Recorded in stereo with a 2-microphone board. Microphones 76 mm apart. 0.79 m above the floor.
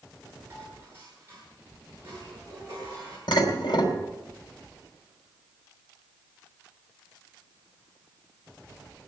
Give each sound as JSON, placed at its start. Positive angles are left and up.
{"t": 0.5, "sound": "dishes clattering", "side_deg": -30, "distance_m": 8.5}
{"t": 3.3, "sound": "dishes clattering", "side_deg": 75, "distance_m": 3.5}